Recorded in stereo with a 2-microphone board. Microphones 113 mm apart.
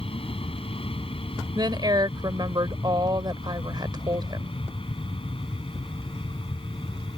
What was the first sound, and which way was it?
An aircraft, 55° left (ahead or behind).